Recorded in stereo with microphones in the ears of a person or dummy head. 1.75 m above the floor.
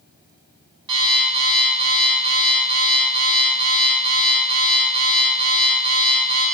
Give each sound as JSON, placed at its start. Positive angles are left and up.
{"t": 0.9, "sound": "an alarm clock", "side_deg": -30, "distance_m": 1.7}